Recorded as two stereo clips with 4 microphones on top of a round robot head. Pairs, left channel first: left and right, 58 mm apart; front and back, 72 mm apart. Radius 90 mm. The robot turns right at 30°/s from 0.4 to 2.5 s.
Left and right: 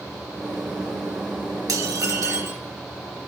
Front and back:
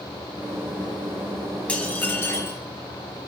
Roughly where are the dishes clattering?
Right.